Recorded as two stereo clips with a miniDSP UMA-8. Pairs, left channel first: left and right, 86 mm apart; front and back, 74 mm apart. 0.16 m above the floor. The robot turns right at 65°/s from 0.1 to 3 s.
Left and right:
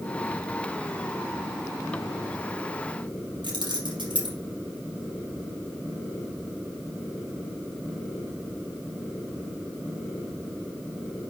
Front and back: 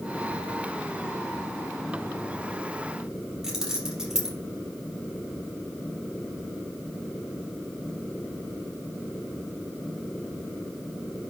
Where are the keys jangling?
100° right, 3 m.